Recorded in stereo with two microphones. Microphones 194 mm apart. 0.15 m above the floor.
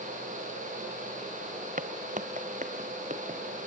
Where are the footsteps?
50° right (ahead or behind), 1.0 m; by 3.4 s 40° right (ahead or behind), 2.5 m.